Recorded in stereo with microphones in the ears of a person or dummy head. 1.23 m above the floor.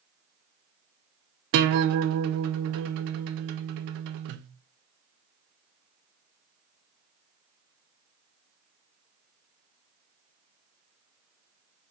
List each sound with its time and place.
1.5 s a guitar: 55° right (ahead or behind), 0.5 m